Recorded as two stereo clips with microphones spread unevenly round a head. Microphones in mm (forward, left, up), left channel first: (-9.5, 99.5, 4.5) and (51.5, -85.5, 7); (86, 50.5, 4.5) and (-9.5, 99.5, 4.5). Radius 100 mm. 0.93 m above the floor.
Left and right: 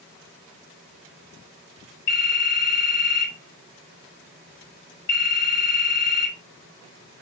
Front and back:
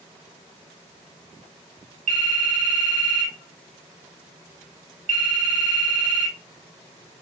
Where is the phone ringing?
150° left, 3.5 m.